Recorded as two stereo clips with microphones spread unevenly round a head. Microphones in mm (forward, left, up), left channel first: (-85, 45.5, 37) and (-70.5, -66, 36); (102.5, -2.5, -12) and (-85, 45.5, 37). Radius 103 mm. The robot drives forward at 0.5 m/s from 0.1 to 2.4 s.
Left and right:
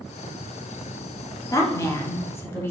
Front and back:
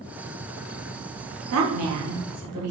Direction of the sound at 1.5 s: 160° left.